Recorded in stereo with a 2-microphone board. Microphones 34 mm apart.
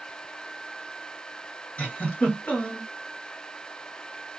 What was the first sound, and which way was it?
A giggle, 40° left (ahead or behind).